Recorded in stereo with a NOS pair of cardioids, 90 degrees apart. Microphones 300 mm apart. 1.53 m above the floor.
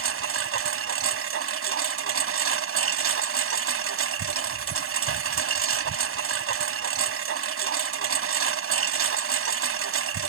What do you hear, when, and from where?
0.0 s a lawn mower: 50° right